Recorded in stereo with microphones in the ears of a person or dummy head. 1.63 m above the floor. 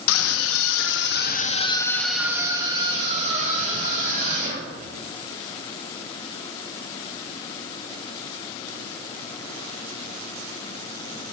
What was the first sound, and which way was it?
A scream, 85° left.